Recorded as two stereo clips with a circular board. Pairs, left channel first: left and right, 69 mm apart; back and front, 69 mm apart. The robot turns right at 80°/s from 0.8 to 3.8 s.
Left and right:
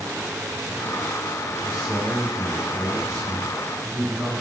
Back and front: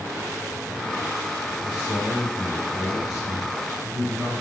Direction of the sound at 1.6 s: Straight behind.